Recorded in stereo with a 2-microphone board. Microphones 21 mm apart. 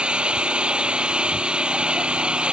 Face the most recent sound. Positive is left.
turn(degrees=-45)  # may be behind; listen again after turning